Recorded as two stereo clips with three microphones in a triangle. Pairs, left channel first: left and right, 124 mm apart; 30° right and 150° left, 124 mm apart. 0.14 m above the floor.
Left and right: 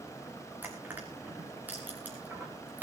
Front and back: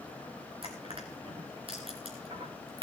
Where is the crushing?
165° right, 4 m.